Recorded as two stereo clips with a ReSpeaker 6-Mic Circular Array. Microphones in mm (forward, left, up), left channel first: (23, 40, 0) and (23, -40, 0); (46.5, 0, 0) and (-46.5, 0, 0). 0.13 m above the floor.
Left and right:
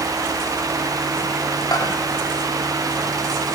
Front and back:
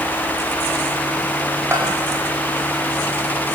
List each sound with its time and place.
1.7 s a bell: 120° left, 7.5 m